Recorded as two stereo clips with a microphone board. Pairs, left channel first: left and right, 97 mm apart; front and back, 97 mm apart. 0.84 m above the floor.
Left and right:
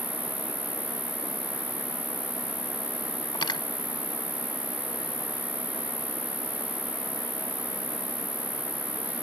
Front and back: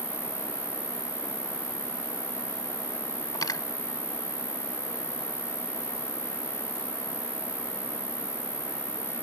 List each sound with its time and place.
0.0 s an insect: 20° right
3.4 s cutlery clinking: 50° left